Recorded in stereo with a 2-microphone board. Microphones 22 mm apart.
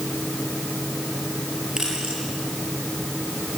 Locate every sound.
1.8 s keys jangling: 35° right (ahead or behind), 10 m